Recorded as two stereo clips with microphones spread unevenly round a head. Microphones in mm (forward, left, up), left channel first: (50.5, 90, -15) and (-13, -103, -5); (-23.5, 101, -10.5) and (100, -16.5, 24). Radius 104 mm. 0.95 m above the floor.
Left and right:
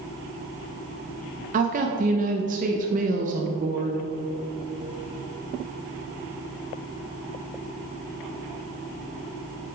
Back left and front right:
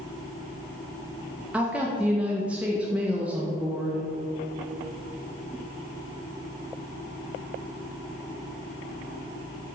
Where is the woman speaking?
140° right, 0.6 m.